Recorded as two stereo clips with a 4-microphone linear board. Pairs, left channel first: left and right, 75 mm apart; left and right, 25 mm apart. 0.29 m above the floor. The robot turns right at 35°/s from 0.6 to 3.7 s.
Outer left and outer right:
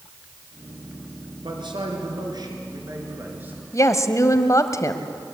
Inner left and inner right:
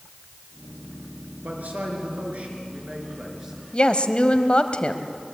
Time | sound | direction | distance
1.4 | a man speaking | 95° right | 4 m
3.7 | a woman speaking | 45° left (ahead or behind) | 1.2 m